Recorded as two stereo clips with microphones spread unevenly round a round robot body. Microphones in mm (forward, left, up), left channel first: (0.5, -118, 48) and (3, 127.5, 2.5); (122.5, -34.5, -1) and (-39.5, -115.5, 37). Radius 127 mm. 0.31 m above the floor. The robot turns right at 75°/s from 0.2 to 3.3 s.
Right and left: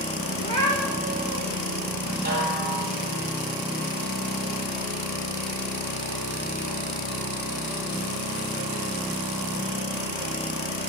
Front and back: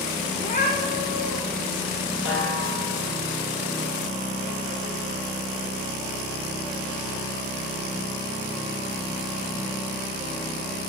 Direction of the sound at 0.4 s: 30° right.